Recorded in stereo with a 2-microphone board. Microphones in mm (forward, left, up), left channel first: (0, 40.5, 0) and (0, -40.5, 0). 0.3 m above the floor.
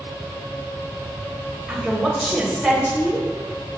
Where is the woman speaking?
5° right (ahead or behind), 1.0 m.